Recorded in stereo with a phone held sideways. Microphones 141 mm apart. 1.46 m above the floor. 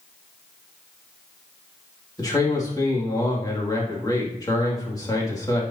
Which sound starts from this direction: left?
A man speaking, at 2.2 s.